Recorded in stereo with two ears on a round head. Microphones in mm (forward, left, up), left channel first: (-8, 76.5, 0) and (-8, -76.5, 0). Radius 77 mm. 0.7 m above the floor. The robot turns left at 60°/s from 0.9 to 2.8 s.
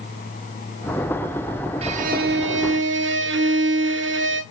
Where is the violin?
35° right, 0.6 m; by 4.4 s 95° right, 0.6 m.